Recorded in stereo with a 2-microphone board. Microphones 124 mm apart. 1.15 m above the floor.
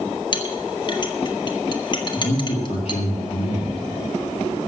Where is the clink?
35° left (ahead or behind), 1.6 m.